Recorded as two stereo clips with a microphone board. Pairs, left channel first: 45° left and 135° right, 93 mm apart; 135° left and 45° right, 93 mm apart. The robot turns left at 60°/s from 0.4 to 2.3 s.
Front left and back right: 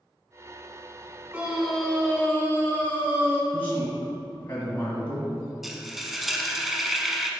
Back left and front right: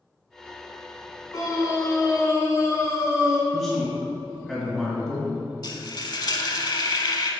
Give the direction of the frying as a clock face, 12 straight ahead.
7 o'clock.